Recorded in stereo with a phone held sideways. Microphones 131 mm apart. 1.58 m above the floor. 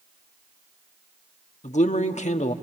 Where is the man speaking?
65° left (ahead or behind), 1.1 m.